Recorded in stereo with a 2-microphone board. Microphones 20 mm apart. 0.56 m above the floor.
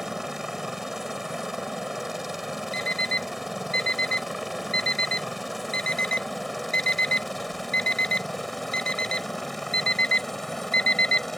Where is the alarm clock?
65° left (ahead or behind).